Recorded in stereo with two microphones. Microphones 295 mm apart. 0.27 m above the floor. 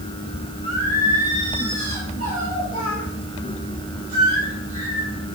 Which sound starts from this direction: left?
Singing, at 0.6 s.